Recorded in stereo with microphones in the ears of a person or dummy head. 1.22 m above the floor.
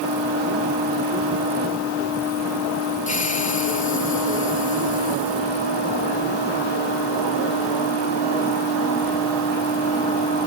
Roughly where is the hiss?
Left.